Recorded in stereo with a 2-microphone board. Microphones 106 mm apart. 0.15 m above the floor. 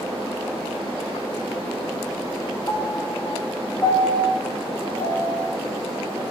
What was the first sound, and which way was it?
A piano, 35° left (ahead or behind).